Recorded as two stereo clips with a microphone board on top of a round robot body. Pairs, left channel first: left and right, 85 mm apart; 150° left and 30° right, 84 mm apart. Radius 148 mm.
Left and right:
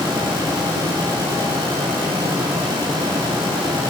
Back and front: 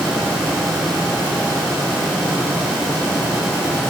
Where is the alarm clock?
I don't hear an alarm clock.